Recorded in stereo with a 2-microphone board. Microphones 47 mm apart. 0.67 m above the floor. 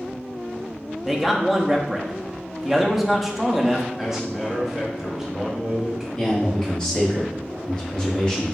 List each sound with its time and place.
1.1 s a man speaking: centre (ahead or behind), 0.6 m
4.0 s a man speaking: 5° right (ahead or behind), 1.0 m
6.2 s a man speaking: 20° left (ahead or behind), 1.4 m